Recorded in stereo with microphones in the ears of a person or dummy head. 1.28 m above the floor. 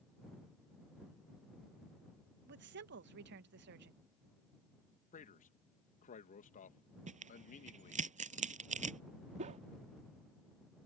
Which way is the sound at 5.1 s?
40° left (ahead or behind).